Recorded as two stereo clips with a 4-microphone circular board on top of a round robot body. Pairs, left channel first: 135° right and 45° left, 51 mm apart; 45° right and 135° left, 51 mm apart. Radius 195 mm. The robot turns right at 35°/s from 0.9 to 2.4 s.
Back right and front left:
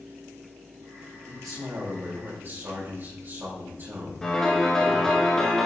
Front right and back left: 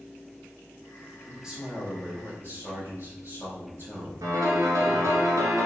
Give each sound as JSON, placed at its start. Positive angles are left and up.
{"t": 1.3, "sound": "a man speaking", "azimuth_deg": 50, "distance_m": 4.5}
{"t": 4.2, "sound": "a piano", "azimuth_deg": 145, "distance_m": 1.8}